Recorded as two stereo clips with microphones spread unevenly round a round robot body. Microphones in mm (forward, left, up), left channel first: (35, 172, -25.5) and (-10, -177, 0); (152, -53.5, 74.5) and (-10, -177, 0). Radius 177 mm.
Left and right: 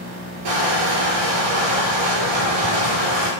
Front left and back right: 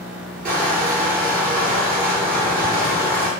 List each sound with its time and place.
0.5 s crushing: 100° right, 5.5 m